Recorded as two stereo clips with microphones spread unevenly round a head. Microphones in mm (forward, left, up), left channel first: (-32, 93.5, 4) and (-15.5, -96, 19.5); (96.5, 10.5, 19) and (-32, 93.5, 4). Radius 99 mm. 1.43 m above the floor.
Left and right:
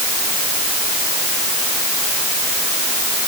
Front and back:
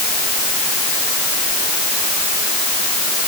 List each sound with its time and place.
Only background noise.